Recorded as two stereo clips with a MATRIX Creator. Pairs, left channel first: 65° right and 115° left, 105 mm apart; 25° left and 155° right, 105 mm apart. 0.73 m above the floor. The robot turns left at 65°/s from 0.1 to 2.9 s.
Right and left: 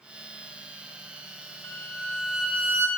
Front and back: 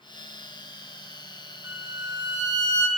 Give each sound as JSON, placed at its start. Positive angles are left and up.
{"t": 1.6, "sound": "a violin", "azimuth_deg": -115, "distance_m": 0.7}